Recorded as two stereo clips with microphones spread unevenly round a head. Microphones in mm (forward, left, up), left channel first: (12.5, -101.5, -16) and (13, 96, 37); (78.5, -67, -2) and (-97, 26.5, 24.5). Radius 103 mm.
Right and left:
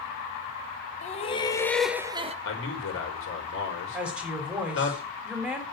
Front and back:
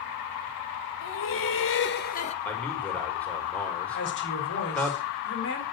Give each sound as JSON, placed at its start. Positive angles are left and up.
{"t": 1.0, "sound": "laughter", "azimuth_deg": -40, "distance_m": 1.8}
{"t": 2.5, "sound": "a man speaking", "azimuth_deg": -110, "distance_m": 5.0}
{"t": 3.9, "sound": "a woman speaking", "azimuth_deg": 5, "distance_m": 4.0}